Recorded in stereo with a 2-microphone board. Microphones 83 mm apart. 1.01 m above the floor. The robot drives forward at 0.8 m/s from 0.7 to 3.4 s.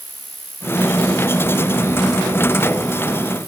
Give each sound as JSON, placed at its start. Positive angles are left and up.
{"t": 0.0, "sound": "an insect", "side_deg": 20}